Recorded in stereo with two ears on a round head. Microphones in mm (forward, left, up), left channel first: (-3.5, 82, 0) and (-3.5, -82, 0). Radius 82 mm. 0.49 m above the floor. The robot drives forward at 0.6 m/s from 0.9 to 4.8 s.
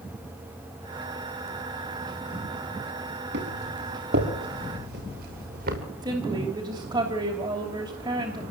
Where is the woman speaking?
25° right (ahead or behind), 3 m.